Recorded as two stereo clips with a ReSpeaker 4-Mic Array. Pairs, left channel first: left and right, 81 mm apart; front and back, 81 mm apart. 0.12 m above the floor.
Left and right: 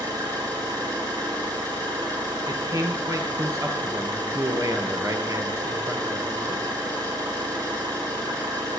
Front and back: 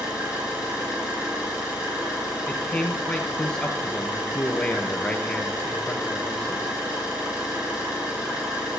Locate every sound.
0.0 s an engine running: 100° right, 7 m
2.5 s a man speaking: 75° right, 1.8 m